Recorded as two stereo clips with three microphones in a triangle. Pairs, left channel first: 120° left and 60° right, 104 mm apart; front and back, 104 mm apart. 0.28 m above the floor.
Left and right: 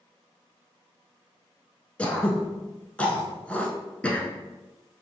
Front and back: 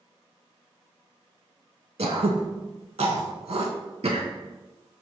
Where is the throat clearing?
165° right, 0.6 m.